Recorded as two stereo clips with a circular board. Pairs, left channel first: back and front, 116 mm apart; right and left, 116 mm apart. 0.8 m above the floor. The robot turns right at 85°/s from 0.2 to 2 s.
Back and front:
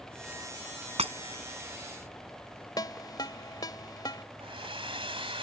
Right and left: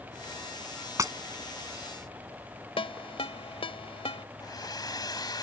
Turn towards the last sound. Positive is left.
turn(degrees=-35)